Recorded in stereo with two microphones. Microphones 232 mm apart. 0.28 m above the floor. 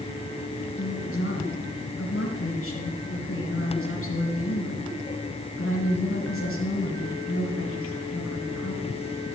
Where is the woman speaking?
65° left (ahead or behind), 2.5 m.